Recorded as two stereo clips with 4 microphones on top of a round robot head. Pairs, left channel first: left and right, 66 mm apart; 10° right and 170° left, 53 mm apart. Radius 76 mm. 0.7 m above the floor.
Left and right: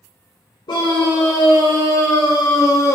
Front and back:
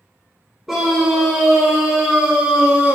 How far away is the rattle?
I don't hear a rattle.